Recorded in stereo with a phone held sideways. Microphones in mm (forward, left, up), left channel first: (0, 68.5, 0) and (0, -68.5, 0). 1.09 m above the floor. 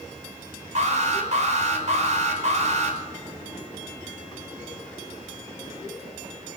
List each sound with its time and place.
0.8 s an alarm: 55° right (ahead or behind), 5.5 m